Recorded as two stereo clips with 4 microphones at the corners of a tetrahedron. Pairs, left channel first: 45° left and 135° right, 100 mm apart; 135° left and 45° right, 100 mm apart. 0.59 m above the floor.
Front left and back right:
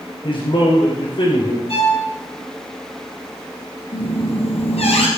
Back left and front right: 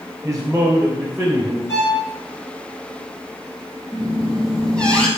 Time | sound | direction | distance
0.2 | a man speaking | 30° left | 3 m
1.7 | a violin | 70° left | 7 m
3.9 | a squeak | 55° left | 3 m